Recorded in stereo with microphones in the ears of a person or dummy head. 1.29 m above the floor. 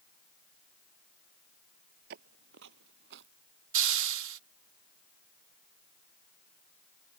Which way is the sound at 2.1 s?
50° right (ahead or behind).